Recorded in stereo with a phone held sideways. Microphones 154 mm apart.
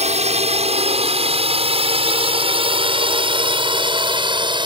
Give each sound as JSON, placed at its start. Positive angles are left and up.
{"t": 0.0, "sound": "a drone", "side_deg": -45}